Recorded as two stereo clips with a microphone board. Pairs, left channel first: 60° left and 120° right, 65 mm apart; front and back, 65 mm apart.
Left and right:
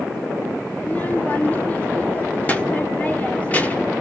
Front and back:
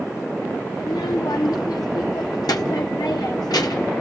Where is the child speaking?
5° right, 1.3 m.